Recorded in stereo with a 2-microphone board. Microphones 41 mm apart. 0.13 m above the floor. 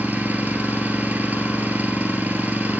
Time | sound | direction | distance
0.0 | an engine running | 50° right (ahead or behind) | 1.1 m